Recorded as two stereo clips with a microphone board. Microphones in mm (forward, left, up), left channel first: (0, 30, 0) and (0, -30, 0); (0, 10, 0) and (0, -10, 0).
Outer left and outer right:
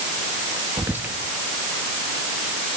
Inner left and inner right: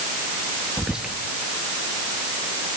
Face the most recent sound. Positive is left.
turn(degrees=-35)  # may be behind; listen again after turning